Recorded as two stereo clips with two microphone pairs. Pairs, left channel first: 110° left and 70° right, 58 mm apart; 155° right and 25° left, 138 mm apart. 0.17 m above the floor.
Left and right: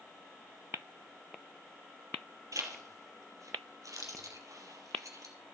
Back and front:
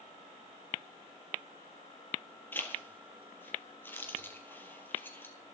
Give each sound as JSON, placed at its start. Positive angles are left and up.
{"t": 2.5, "sound": "a zipper", "azimuth_deg": -80, "distance_m": 2.0}